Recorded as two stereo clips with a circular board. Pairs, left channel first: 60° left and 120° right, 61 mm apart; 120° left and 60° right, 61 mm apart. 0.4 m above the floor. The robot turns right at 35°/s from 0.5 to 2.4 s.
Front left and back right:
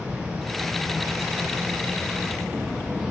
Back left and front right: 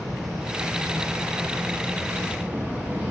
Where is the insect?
150° right, 1.8 m; by 3.1 s 85° right, 1.8 m.